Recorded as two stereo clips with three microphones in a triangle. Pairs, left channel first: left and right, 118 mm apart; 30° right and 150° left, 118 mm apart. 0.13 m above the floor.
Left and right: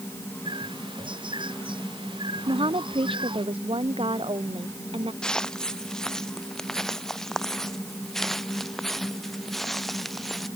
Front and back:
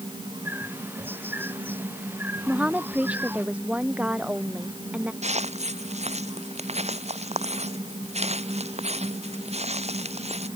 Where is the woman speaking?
130° right.